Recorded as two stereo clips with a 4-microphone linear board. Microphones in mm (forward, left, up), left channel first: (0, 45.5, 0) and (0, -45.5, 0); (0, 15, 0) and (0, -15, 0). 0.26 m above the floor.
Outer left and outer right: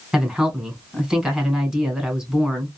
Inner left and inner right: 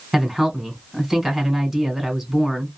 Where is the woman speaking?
5° right (ahead or behind), 1.7 m.